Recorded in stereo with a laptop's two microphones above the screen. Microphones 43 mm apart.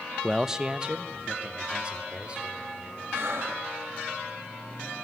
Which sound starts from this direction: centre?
A man speaking, at 0.2 s.